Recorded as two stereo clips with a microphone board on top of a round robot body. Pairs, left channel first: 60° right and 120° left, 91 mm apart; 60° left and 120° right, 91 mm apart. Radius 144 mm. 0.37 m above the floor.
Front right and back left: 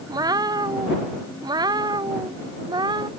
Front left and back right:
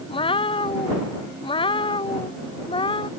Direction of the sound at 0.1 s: 75° left.